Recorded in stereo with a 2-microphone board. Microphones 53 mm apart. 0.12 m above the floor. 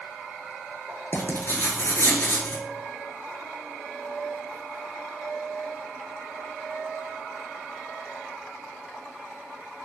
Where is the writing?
50° left (ahead or behind), 0.5 m.